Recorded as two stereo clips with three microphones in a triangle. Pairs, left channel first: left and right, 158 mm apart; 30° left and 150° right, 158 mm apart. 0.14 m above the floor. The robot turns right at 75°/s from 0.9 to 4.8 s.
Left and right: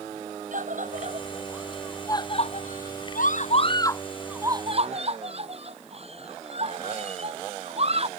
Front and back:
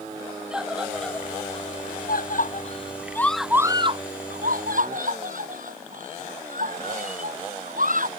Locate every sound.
0.5 s a scream: 65° right; by 8.1 s 135° right